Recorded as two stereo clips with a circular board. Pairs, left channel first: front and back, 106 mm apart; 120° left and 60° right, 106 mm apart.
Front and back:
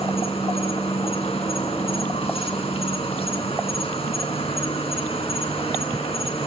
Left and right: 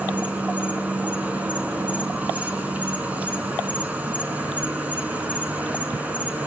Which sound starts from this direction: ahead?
An insect, at 0.0 s.